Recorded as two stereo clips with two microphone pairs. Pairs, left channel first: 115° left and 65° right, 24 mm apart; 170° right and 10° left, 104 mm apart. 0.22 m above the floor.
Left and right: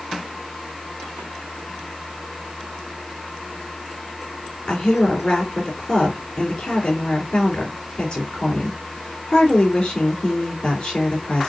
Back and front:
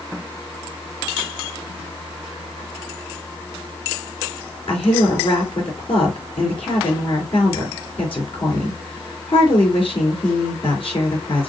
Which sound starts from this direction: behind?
A woman speaking, at 4.7 s.